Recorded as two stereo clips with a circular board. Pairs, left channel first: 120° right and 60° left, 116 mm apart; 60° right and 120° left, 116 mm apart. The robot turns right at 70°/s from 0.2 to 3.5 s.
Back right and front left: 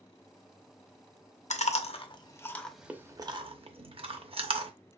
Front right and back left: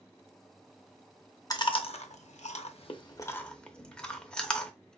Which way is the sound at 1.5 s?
115° right.